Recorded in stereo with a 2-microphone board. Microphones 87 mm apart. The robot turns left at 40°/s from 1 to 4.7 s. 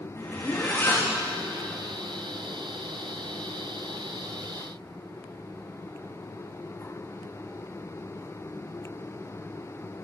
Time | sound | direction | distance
0.2 | a zipper | 30° left (ahead or behind) | 6 m